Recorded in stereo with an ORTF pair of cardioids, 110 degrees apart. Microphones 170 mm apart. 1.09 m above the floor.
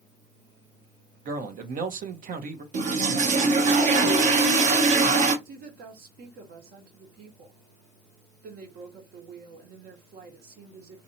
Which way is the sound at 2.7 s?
45° right.